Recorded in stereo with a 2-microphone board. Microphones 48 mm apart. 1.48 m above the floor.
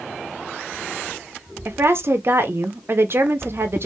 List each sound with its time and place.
1.6 s a woman speaking: 55° right (ahead or behind), 0.6 m